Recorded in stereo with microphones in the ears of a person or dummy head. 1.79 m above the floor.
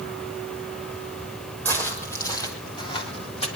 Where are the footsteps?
10° left (ahead or behind), 4.5 m; by 3.5 s 40° left (ahead or behind), 3.5 m.